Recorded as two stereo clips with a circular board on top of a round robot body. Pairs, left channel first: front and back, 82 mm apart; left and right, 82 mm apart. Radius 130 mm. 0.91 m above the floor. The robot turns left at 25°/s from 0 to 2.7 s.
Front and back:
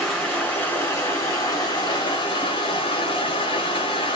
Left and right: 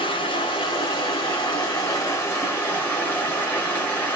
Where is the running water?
85° left, 0.8 m; by 4.2 s 20° left, 0.8 m.